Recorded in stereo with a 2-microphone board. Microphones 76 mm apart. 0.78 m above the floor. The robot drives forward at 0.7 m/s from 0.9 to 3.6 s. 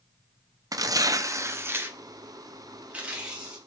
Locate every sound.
0.7 s tearing paper: 50° right (ahead or behind), 0.6 m; by 3.6 s 10° right (ahead or behind), 2 m